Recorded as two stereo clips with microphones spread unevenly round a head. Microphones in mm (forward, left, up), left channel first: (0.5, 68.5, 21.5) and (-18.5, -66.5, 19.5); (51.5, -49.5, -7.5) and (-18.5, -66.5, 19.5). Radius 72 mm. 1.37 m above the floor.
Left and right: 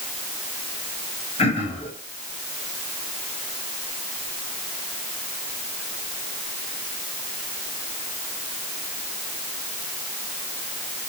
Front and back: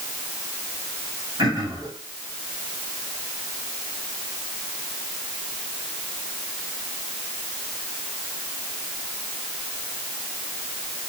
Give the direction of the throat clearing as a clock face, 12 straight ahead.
8 o'clock.